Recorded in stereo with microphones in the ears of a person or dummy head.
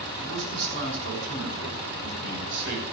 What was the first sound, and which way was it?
A man speaking, 70° right (ahead or behind).